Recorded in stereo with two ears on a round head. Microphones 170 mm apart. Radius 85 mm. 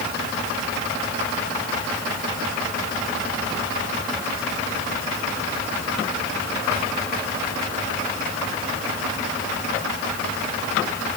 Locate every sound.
Only background noise.